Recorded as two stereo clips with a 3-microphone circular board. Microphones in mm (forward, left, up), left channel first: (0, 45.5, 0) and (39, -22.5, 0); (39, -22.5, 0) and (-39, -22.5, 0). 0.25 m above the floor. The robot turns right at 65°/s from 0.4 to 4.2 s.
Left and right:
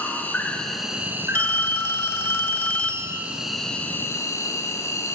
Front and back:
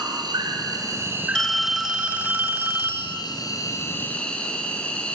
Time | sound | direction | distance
0.0 | an insect | 175° right | 2 m
1.4 | a phone ringing | 75° left | 1.0 m